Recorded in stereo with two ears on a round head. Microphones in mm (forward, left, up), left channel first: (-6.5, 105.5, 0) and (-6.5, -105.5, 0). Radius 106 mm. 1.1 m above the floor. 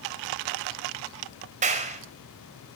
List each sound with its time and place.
1.6 s a clap: 35° right (ahead or behind), 4.5 m